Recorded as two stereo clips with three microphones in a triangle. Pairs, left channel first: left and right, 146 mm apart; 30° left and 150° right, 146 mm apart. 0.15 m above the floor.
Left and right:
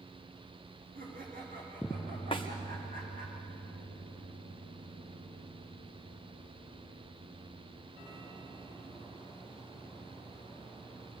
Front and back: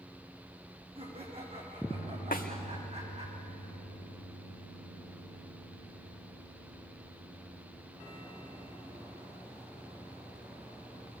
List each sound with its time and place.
0.9 s laughter: 100° right, 9.5 m; by 3.3 s 105° right, 11 m
2.3 s a snare drum: 40° left, 2.5 m